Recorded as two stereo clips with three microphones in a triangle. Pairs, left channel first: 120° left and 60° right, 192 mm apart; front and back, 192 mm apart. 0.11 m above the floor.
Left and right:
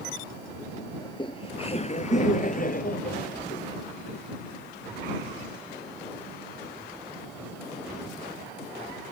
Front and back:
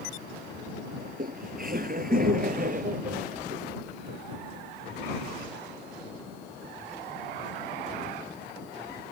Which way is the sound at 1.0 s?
Straight behind.